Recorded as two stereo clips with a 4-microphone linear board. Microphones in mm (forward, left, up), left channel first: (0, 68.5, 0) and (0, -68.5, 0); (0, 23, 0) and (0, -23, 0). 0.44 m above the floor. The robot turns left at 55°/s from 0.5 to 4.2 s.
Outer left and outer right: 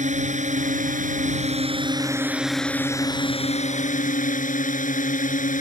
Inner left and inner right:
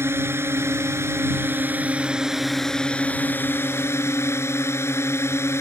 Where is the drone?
70° right; by 5.6 s 90° left.